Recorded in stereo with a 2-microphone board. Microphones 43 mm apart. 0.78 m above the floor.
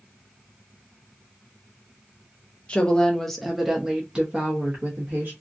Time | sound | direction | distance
2.7 | a woman speaking | 25° left (ahead or behind) | 0.9 m